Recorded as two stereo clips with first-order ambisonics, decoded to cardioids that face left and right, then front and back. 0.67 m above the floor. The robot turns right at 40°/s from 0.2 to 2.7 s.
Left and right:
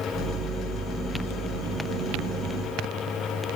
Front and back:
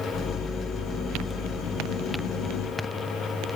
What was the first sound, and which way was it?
Only background noise.